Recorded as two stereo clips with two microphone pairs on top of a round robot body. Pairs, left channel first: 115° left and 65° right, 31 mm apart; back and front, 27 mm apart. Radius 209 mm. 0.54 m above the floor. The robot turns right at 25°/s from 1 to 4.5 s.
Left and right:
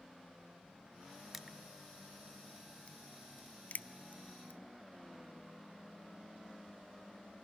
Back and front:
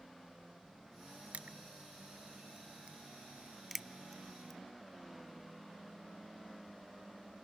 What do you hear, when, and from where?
1.3 s crushing: 20° left, 0.5 m; by 4.6 s 95° left, 0.5 m